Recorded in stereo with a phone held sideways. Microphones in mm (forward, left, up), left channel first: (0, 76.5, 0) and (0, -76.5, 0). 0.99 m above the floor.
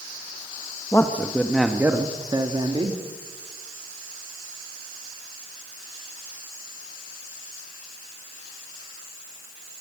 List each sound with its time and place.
0.9 s a man speaking: 20° left (ahead or behind), 1.5 m; by 3.0 s 35° right (ahead or behind), 2.5 m